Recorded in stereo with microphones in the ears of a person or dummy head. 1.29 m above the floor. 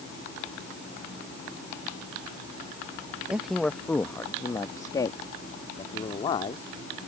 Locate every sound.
3.3 s a man speaking: 5° right (ahead or behind); by 6.6 s 35° left (ahead or behind)